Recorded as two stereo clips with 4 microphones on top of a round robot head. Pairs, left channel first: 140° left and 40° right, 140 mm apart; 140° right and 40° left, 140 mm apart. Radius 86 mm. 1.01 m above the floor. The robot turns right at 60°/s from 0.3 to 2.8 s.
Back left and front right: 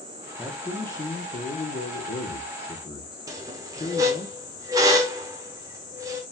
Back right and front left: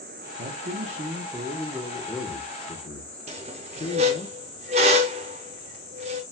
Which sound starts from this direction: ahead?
A squeak, at 3.3 s.